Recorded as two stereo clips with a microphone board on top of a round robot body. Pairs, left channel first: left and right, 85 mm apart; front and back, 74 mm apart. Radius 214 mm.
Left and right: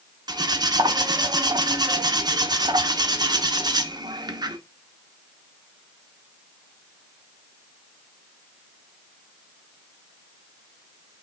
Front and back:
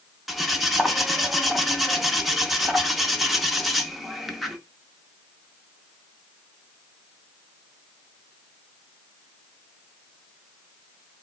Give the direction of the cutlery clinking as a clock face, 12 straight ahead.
3 o'clock.